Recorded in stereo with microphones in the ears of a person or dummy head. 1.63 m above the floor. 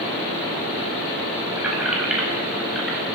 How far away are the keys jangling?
About 7.5 m.